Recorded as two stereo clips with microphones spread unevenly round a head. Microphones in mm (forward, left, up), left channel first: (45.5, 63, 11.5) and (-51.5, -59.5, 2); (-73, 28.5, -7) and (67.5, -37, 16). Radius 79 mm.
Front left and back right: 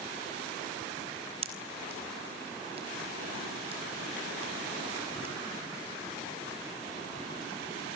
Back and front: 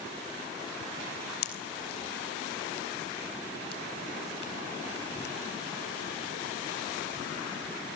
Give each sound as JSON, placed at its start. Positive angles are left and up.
{"t": 1.4, "sound": "a pop", "azimuth_deg": 175, "distance_m": 4.0}